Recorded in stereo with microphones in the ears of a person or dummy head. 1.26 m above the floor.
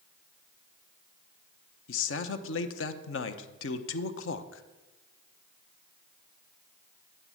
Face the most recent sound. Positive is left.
turn(degrees=70)  # may be behind; listen again after turning